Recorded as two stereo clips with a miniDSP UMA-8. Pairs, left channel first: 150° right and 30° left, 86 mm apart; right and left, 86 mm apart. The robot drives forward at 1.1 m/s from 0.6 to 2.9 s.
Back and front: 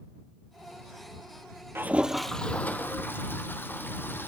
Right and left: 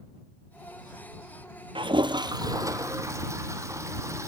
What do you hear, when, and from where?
1.8 s a toilet flushing: 90° left, 0.9 m; by 4.3 s 145° left, 1.6 m